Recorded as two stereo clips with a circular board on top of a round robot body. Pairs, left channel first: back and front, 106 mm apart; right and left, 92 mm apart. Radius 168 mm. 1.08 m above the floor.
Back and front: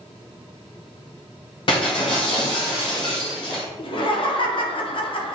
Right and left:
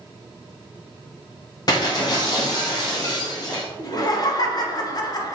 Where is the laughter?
140° right, 0.9 m.